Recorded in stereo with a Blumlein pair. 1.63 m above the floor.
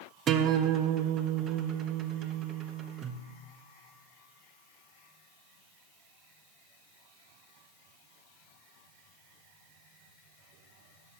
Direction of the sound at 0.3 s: 25° right.